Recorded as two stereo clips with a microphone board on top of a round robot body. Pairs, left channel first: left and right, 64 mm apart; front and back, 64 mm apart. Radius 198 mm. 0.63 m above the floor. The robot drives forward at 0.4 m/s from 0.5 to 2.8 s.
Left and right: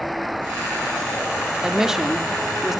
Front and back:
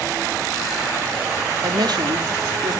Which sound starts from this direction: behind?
A woman speaking, at 1.6 s.